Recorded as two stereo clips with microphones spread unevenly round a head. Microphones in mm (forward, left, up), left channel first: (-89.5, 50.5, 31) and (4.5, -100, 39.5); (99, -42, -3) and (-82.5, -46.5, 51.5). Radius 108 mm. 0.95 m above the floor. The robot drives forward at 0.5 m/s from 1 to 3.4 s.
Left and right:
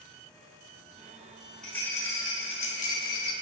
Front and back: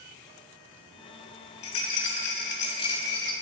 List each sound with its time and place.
1.6 s a rattle: 35° left, 1.0 m; by 3.3 s 105° left, 0.7 m